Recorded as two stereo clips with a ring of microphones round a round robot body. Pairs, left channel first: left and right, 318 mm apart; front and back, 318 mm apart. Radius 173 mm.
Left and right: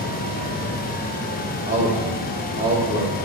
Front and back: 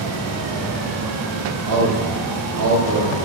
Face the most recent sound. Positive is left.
turn(degrees=-160)